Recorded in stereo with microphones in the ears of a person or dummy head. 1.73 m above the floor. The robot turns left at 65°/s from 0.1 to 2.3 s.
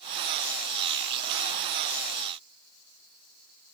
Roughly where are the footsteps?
No footsteps in this recording.